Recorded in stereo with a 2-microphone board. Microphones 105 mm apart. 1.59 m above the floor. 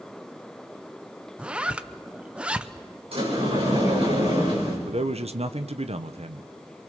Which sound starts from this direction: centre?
A zipper, at 1.4 s.